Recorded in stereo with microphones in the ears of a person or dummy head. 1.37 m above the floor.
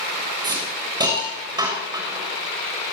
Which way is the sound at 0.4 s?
20° right (ahead or behind).